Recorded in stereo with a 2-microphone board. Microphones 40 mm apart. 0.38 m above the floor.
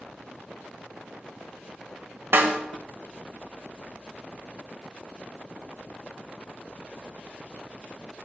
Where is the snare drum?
60° right (ahead or behind), 0.7 m.